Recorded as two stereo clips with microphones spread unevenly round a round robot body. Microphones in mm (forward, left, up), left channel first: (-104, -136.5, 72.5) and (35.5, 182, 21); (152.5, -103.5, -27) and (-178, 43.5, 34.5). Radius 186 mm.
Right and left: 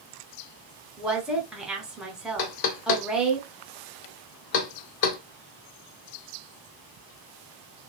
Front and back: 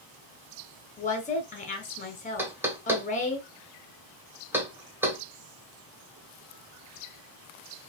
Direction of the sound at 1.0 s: 5° right.